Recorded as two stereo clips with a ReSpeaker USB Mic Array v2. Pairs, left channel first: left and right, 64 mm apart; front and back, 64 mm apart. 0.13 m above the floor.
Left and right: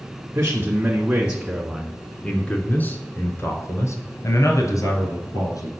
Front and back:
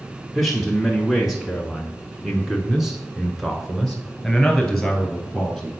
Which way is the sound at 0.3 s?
90° right.